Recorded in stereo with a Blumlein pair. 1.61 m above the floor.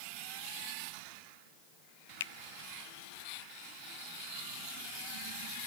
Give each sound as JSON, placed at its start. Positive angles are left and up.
{"t": 2.2, "sound": "a finger snap", "azimuth_deg": 60}